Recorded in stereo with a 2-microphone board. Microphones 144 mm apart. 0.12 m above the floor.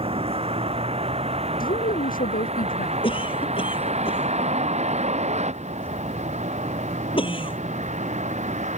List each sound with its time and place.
0.0 s a vehicle: 40° right (ahead or behind); by 8.8 s 55° right (ahead or behind)
1.6 s a woman speaking: 80° left
3.0 s a cough: 40° left (ahead or behind)